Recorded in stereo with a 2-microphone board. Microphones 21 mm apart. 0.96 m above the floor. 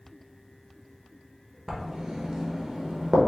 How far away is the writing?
About 0.8 m.